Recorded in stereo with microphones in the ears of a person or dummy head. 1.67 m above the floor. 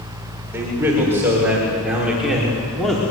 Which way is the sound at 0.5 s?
15° right (ahead or behind).